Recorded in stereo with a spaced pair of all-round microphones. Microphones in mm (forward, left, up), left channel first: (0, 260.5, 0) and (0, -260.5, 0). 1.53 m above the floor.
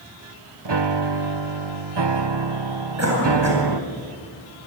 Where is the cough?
30° right (ahead or behind), 8.5 m.